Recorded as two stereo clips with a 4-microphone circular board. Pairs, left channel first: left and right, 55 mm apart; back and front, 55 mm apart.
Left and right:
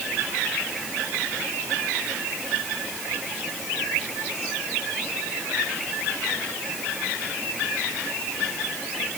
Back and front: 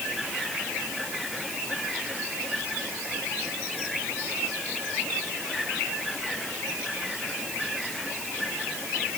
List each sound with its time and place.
Only background noise.